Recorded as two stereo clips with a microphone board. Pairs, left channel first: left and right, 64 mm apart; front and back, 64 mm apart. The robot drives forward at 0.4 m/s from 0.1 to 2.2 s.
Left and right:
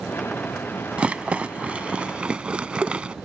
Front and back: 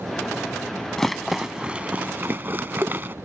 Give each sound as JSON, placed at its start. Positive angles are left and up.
{"t": 1.0, "sound": "a rattle", "azimuth_deg": -70}